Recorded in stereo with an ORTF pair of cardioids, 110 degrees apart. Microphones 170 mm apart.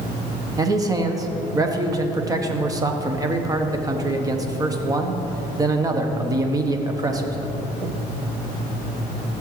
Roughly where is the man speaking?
Ahead.